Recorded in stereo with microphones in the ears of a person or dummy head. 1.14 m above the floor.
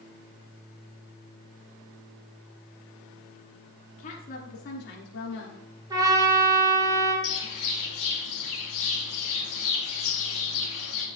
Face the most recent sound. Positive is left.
turn(degrees=70)  # may be behind; listen again after turning